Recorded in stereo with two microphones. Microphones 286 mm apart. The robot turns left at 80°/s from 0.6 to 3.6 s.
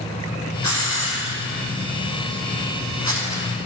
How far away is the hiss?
About 4 m.